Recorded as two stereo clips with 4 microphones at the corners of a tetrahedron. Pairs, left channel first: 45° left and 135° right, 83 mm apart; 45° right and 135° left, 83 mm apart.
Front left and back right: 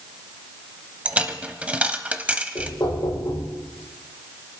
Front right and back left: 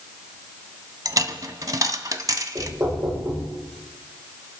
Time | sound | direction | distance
1.1 | a dropped coin | 155° left | 0.8 m
2.5 | knocking | 85° left | 7.5 m